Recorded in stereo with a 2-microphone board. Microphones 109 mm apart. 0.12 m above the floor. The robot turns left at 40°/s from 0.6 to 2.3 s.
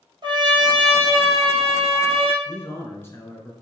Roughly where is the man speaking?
Left.